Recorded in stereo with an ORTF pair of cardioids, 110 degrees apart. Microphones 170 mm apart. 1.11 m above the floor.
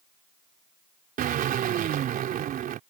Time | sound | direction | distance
1.2 | a drill | 60° right | ?